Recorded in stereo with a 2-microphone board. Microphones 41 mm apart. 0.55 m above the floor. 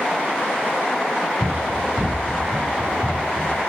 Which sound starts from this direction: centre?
Running footsteps, at 1.4 s.